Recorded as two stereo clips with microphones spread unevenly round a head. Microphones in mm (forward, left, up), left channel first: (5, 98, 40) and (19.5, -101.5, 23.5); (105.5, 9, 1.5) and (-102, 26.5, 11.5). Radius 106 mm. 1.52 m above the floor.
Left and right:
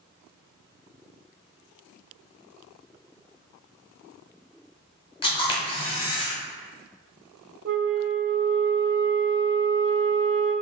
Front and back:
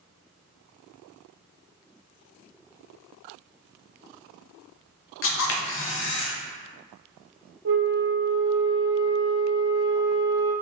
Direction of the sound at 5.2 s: 25° left.